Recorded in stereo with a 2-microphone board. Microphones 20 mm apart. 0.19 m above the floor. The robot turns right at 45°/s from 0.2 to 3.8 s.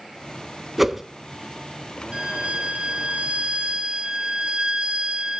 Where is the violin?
125° right, 0.8 m; by 5.4 s 50° right, 0.8 m.